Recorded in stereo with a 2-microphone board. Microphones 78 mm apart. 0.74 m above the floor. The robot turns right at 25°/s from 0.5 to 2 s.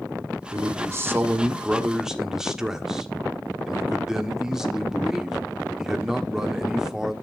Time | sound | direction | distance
0.5 | a man speaking | 45° right | 1.4 m